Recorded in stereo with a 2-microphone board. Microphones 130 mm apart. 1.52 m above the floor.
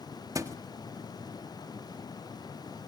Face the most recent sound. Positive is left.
turn(degrees=-25)  # may be behind; listen again after turning